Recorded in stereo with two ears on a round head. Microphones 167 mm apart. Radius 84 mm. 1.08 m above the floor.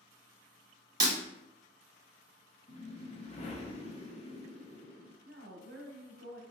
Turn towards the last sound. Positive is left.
turn(degrees=-60)  # may be behind; listen again after turning